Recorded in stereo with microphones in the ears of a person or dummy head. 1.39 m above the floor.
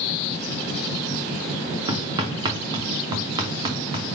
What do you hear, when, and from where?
1.9 s hammering: 35° right (ahead or behind), 0.8 m